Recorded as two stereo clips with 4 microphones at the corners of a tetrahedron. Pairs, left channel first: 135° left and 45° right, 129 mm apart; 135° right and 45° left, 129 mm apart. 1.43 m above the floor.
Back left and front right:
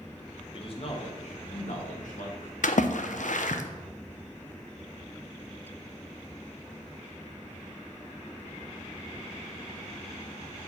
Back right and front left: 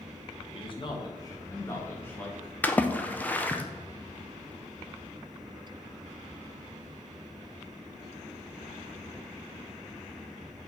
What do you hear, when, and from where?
0.5 s a man speaking: straight behind, 1.4 m; by 2.5 s 145° left, 2 m
2.6 s a splash: 145° left, 0.6 m